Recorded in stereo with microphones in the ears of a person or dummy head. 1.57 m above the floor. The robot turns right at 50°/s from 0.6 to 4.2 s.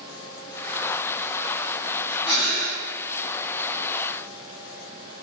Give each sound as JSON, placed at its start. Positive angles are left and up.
{"t": 2.2, "sound": "breathing", "side_deg": 30, "distance_m": 1.0}